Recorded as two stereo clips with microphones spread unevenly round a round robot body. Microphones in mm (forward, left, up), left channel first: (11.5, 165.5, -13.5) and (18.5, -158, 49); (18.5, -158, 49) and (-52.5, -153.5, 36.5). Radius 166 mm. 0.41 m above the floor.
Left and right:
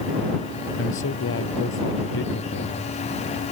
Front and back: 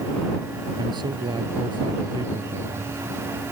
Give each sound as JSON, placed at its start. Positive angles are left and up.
{"t": 0.8, "sound": "a man speaking", "azimuth_deg": 145}